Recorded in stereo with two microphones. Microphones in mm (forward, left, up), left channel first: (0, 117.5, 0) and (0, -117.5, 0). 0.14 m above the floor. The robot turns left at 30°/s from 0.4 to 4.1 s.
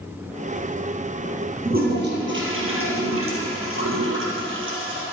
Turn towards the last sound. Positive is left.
turn(degrees=-115)